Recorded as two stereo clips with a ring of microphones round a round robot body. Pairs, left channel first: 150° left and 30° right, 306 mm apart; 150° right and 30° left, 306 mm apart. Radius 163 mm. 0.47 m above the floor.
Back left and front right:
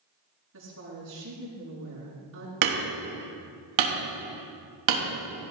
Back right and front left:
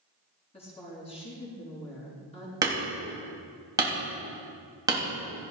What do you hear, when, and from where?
0.5 s a woman speaking: 80° right, 6.5 m
2.6 s hammering: 50° right, 3 m